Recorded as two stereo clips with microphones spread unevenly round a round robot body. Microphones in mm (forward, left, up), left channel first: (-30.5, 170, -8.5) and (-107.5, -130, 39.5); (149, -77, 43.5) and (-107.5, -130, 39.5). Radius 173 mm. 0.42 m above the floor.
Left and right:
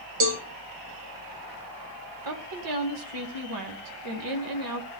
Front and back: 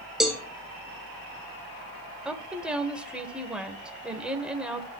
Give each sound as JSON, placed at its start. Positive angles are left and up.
{"t": 0.2, "sound": "a cowbell", "azimuth_deg": -80, "distance_m": 1.6}
{"t": 2.2, "sound": "a woman speaking", "azimuth_deg": -80, "distance_m": 1.5}